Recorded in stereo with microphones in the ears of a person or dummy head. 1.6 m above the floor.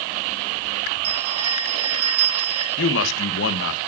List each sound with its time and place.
1.0 s a bell: 35° right (ahead or behind), 7.5 m
2.8 s a man speaking: 70° left (ahead or behind), 1.6 m